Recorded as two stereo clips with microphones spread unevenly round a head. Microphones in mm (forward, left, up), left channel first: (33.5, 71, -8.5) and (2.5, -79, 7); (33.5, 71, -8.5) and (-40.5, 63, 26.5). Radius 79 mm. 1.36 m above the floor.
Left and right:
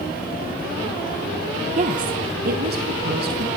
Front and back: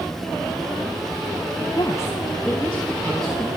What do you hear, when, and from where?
1.8 s a woman speaking: 55° right, 1.0 m; by 3.5 s 80° right, 2.5 m